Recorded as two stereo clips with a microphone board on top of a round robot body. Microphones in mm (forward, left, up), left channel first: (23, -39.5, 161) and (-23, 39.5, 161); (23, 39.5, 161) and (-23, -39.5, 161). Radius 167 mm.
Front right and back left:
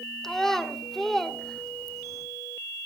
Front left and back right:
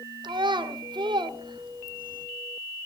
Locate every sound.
0.2 s a child speaking: 145° right, 2 m